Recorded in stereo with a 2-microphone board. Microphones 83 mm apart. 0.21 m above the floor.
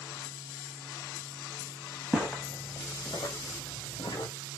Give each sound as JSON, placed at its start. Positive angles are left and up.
{"t": 2.1, "sound": "footsteps", "side_deg": 0, "distance_m": 0.8}